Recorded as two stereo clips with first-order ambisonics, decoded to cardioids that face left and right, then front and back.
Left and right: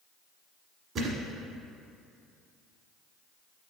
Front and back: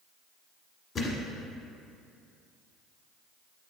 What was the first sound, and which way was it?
A thud, 45° right.